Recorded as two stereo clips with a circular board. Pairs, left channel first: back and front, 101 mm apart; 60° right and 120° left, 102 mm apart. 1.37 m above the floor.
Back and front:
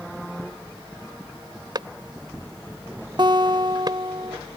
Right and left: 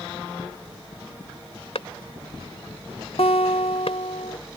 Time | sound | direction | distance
1.8 | a clap | 45° right | ?
3.2 | a guitar | 40° right | ?